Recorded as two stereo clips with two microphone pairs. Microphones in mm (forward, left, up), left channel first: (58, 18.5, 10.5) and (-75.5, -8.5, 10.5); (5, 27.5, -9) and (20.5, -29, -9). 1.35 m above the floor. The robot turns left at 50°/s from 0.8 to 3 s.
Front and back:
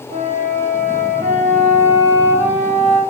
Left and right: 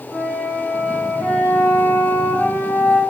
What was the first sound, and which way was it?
A flute, 155° right.